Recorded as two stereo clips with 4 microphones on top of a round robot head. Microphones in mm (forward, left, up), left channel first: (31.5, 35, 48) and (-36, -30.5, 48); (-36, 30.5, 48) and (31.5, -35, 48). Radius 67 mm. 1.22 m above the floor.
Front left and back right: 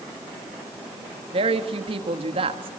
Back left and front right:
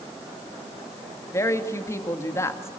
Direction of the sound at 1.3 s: 165° right.